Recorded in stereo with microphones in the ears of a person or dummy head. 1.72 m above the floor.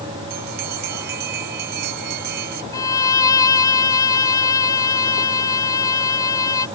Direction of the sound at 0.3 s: 60° right (ahead or behind).